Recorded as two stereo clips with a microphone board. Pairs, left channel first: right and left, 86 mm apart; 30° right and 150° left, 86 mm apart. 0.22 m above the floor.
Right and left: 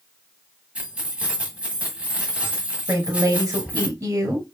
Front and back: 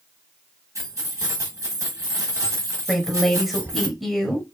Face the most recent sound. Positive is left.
turn(degrees=60)